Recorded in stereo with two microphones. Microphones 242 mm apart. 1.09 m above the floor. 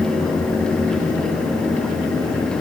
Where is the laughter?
I don't hear laughter.